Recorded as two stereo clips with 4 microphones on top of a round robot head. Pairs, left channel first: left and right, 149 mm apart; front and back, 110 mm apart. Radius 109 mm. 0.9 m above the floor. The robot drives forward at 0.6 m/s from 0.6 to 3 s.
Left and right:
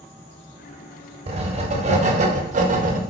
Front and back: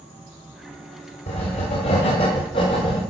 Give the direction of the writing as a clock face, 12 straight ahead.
1 o'clock.